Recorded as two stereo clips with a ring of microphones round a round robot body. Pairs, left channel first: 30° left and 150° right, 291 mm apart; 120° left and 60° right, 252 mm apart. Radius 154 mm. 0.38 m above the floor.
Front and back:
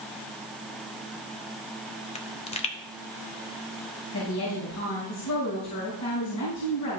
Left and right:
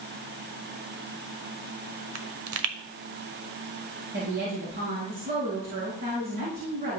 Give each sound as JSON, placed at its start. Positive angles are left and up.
{"t": 2.1, "sound": "a pop", "azimuth_deg": -40, "distance_m": 0.9}
{"t": 4.1, "sound": "a woman speaking", "azimuth_deg": -5, "distance_m": 5.0}